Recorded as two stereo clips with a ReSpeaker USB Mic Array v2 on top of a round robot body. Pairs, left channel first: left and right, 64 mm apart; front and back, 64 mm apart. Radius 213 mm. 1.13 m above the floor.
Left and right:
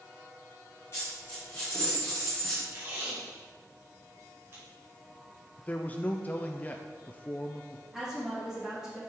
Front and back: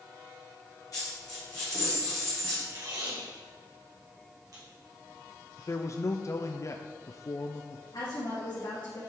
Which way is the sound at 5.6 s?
30° left.